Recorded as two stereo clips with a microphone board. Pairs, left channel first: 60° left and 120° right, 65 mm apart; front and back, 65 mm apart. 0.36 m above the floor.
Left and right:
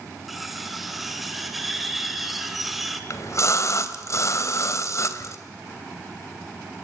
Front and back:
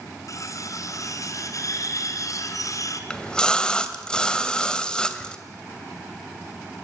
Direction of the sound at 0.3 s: 30° right.